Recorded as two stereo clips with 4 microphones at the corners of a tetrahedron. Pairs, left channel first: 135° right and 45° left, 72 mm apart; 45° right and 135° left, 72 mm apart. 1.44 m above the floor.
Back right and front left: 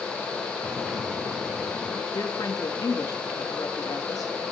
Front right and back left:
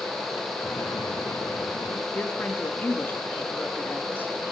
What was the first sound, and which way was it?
An explosion, 40° right.